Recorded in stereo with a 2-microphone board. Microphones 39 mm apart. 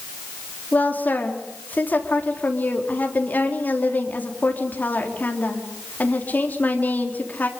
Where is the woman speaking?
45° left (ahead or behind), 4 m.